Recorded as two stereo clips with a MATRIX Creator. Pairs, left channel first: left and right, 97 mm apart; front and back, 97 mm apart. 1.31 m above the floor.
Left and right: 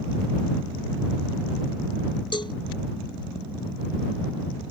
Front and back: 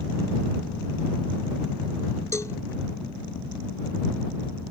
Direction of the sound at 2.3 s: 60° left.